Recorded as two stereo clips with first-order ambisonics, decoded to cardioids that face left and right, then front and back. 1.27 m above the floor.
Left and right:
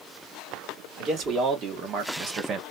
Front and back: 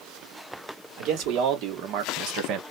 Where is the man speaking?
145° right, 1.7 m.